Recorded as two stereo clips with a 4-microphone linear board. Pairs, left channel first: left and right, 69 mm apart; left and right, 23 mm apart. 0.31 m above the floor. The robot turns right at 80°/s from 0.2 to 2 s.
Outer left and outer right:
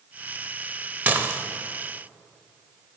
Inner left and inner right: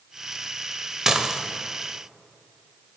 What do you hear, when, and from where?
1.1 s dishes clattering: 25° right (ahead or behind), 0.6 m; by 1.4 s 30° right (ahead or behind), 0.6 m